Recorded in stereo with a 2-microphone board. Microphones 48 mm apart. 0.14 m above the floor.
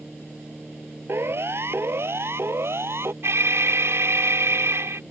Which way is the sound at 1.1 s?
60° right (ahead or behind).